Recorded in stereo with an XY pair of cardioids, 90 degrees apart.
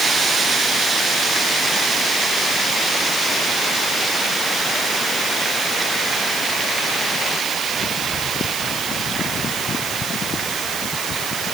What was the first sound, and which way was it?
Only background noise.